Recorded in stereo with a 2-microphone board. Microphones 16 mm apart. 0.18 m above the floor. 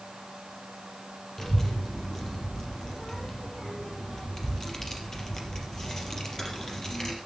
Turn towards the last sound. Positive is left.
turn(degrees=25)  # may be behind; listen again after turning